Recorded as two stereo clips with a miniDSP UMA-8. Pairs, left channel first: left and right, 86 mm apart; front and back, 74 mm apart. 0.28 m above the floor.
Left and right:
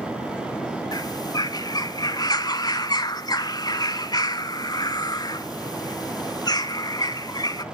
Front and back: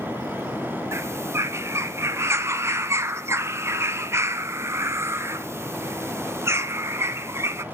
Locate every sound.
0.9 s a bird: 130° left, 0.7 m